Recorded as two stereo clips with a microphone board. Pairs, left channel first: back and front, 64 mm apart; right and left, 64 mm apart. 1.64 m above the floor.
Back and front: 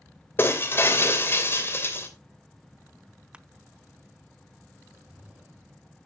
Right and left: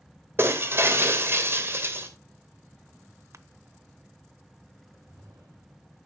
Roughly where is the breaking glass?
Behind left.